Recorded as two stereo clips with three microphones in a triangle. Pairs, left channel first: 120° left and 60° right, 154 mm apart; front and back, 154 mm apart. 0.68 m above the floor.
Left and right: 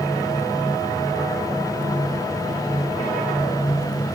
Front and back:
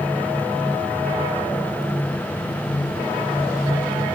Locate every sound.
Only background noise.